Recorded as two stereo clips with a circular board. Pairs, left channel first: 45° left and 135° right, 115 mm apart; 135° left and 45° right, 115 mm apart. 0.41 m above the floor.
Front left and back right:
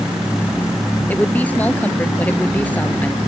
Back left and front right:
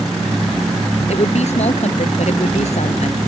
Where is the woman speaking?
120° left.